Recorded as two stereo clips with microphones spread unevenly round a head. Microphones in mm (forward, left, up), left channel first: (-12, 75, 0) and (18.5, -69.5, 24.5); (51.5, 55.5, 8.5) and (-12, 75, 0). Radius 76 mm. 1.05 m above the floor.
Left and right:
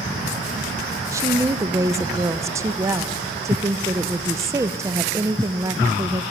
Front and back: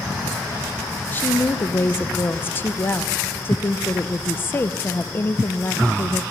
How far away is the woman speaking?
About 0.5 m.